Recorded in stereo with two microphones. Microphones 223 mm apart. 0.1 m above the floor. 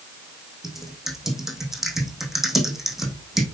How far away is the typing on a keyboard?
About 3 m.